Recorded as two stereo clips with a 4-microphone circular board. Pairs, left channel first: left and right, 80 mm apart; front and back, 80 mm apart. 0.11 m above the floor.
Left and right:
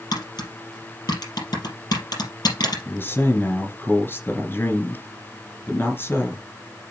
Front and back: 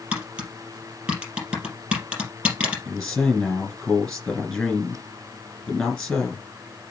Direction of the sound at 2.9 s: 75° left.